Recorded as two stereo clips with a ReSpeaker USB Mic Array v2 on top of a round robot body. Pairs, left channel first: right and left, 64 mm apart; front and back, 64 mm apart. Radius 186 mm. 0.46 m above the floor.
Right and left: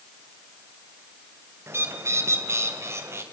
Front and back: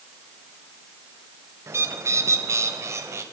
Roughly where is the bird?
Behind left.